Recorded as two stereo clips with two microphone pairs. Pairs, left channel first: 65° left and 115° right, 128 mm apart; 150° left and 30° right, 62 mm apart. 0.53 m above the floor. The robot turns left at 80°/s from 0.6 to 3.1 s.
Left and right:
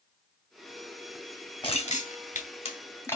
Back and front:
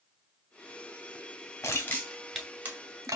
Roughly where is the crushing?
Left.